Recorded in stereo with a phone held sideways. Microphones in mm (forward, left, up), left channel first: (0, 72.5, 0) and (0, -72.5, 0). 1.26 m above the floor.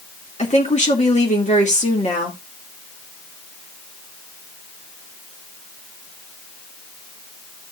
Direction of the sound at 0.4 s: 50° left (ahead or behind).